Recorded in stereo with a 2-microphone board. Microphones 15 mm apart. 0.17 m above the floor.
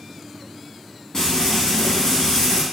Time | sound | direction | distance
1.1 | frying | 50° left (ahead or behind) | 1.3 m